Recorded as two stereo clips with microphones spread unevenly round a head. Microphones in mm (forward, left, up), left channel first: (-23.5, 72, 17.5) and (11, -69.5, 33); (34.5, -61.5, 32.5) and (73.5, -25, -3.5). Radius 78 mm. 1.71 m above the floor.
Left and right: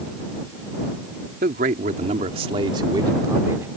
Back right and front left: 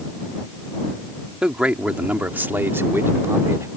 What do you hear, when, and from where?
1.4 s a man speaking: 45° right; by 3.7 s 5° right